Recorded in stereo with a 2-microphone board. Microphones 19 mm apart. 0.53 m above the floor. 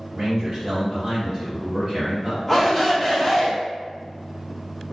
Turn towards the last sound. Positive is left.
turn(degrees=20)  # may be behind; listen again after turning